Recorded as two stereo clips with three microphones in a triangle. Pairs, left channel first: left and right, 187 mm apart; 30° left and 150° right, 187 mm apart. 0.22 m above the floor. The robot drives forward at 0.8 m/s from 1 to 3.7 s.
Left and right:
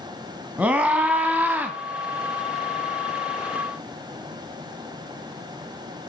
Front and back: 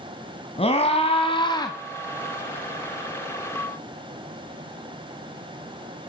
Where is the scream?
10° right, 2 m; by 1.8 s 20° right, 1.8 m.